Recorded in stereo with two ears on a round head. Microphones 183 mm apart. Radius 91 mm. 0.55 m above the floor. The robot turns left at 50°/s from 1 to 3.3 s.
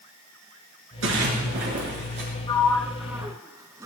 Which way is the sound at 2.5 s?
25° left (ahead or behind).